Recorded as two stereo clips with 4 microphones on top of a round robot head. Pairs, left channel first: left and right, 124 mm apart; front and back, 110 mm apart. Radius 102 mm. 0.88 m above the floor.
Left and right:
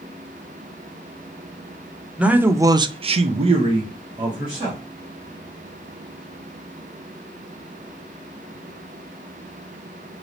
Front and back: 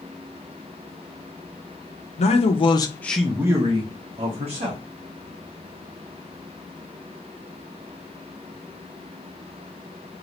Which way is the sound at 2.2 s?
10° right.